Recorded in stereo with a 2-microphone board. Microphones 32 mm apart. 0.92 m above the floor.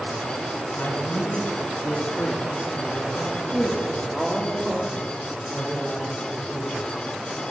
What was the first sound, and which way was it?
A man speaking, 80° left.